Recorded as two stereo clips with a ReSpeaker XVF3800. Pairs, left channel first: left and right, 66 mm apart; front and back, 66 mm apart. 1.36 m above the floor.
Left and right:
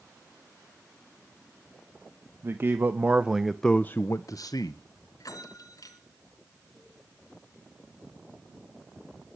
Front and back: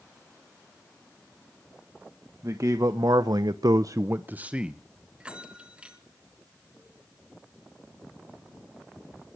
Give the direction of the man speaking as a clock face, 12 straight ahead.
5 o'clock.